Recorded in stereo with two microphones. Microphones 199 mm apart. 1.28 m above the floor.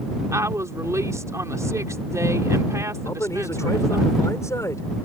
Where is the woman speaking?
15° right (ahead or behind).